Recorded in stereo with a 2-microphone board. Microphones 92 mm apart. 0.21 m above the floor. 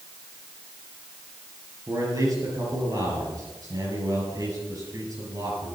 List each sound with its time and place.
1.9 s a man speaking: 40° right (ahead or behind), 5.5 m